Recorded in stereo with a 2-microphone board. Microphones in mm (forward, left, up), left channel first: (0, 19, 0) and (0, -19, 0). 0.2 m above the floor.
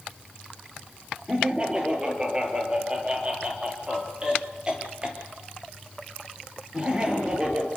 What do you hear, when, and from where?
1.3 s laughter: 25° right (ahead or behind), 4.5 m